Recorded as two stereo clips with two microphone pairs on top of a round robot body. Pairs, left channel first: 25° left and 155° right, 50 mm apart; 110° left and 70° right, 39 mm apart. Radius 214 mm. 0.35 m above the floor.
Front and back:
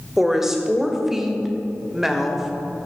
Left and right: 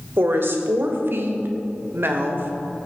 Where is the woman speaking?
75° right, 2.5 m.